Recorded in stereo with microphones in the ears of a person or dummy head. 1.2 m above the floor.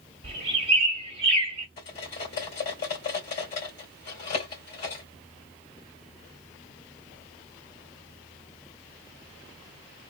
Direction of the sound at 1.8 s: 45° left (ahead or behind).